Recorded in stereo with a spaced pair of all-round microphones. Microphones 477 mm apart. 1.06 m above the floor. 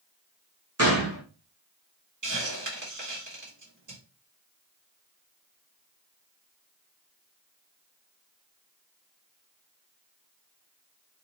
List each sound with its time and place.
0.8 s a gunshot: 30° right (ahead or behind), 1.1 m
2.2 s a hiss: 40° right (ahead or behind), 1.5 m